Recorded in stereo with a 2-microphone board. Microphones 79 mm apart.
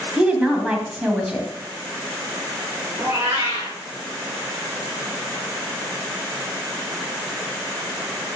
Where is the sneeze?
I don't hear a sneeze.